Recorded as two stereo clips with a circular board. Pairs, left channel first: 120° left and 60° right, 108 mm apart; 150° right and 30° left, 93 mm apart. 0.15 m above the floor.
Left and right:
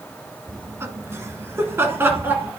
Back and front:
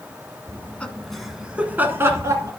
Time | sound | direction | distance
0.5 | laughter | 110° right | 1.2 m